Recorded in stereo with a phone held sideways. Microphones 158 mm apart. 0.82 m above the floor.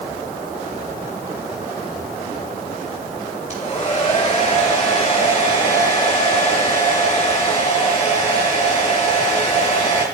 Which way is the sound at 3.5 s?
50° left (ahead or behind).